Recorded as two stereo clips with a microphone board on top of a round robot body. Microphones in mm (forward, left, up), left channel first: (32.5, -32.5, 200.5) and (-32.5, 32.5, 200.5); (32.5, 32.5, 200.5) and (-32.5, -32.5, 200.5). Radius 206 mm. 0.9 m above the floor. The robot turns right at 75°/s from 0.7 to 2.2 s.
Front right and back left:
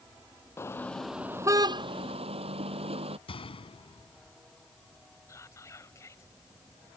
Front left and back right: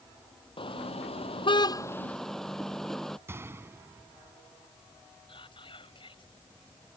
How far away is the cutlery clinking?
I don't hear cutlery clinking.